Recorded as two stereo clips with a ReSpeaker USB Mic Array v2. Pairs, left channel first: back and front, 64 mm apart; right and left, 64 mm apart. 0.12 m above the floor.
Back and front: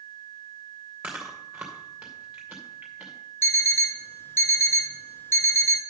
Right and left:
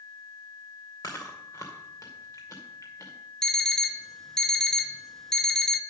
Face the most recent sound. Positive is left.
turn(degrees=-170)